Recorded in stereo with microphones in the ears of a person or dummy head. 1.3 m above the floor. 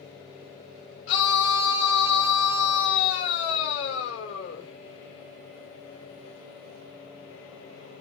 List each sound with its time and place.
1.1 s a scream: 75° left (ahead or behind), 3.5 m